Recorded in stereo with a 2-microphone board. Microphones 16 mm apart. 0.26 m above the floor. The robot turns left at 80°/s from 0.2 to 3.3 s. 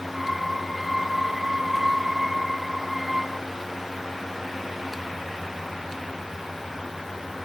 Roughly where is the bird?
I don't hear a bird.